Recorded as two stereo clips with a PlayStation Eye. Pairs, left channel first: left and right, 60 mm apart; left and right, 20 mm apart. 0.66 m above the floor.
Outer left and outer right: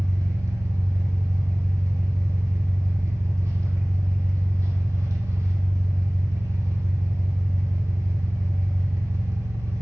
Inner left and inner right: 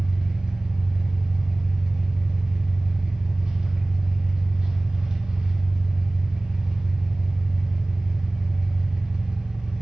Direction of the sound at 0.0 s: 65° right (ahead or behind).